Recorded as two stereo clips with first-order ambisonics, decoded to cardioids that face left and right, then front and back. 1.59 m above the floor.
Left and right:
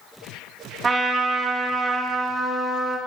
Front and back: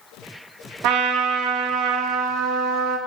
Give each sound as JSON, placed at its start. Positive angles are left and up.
{"t": 0.8, "sound": "a trumpet", "azimuth_deg": -160, "distance_m": 0.6}